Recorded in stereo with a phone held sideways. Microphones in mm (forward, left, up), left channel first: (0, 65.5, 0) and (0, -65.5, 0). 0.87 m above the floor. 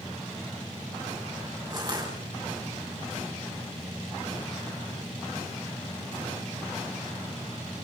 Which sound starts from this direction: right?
Crushing, at 1.7 s.